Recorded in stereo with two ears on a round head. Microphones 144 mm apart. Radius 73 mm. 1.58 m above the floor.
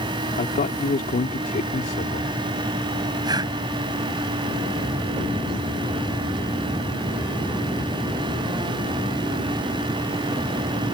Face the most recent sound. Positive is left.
turn(degrees=-25)  # may be behind; listen again after turning